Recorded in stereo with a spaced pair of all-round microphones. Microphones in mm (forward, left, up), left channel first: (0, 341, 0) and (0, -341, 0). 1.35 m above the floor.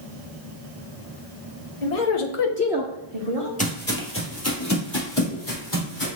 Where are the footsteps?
10° left (ahead or behind), 1.4 m; by 6.1 s 30° left (ahead or behind), 2.5 m.